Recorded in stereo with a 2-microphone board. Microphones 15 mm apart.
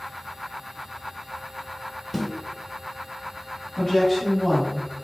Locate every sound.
2.1 s a snare drum: centre (ahead or behind), 1.0 m
3.8 s a woman speaking: 30° left (ahead or behind), 1.3 m